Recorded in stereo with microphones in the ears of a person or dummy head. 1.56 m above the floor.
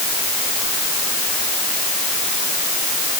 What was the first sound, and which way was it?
Only background noise.